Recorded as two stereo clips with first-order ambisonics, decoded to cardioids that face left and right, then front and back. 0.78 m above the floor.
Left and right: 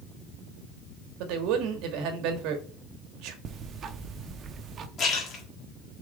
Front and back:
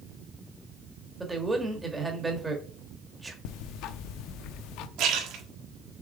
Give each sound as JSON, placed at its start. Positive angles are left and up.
{"t": 1.2, "sound": "a man speaking", "azimuth_deg": -100, "distance_m": 1.3}
{"t": 3.5, "sound": "ticking", "azimuth_deg": -30, "distance_m": 0.6}
{"t": 5.0, "sound": "a splash", "azimuth_deg": 150, "distance_m": 1.6}